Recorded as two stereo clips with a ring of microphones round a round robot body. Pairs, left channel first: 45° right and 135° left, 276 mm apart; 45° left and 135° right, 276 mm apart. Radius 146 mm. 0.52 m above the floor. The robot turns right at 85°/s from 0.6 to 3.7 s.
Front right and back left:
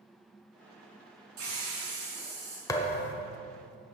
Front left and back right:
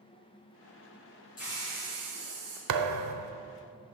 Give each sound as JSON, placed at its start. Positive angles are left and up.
{"t": 1.4, "sound": "a hiss", "azimuth_deg": 105, "distance_m": 4.0}
{"t": 2.7, "sound": "a thud", "azimuth_deg": -125, "distance_m": 0.8}